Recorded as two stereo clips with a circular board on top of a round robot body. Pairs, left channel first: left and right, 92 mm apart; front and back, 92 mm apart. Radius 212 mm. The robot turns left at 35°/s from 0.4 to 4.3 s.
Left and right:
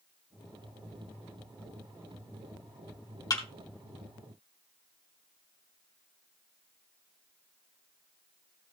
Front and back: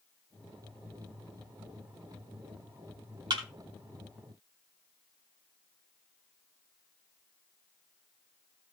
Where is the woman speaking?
No woman speaking in this recording.